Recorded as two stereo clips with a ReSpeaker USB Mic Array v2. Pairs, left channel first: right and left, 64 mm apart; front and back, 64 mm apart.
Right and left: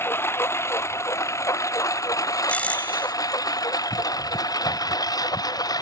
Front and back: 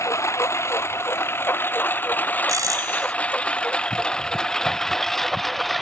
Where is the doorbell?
160° right.